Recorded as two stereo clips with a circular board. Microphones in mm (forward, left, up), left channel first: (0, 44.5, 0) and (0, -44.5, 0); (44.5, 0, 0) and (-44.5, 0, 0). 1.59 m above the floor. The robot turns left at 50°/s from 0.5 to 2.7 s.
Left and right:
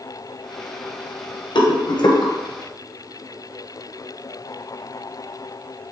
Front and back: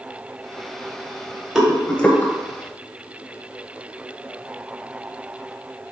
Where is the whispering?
No whispering in this recording.